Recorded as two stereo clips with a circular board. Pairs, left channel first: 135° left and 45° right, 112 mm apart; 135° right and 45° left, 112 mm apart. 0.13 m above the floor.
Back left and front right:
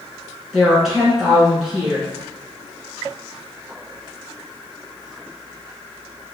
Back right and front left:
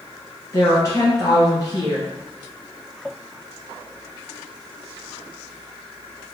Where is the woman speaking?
130° right, 1.2 m.